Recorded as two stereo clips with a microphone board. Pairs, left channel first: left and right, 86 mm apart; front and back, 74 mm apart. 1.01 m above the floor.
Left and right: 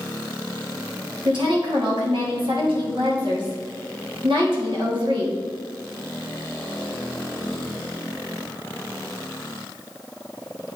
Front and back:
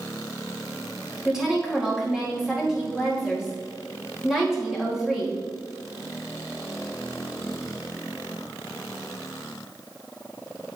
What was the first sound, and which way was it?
A woman speaking, 95° right.